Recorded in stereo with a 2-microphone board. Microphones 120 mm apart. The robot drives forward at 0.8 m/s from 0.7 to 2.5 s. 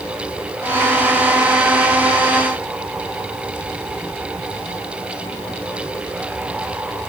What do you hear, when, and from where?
Only background noise.